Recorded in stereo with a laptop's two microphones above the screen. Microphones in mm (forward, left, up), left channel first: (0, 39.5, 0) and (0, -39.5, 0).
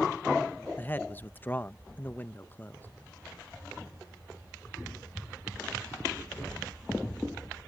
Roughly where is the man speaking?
Left.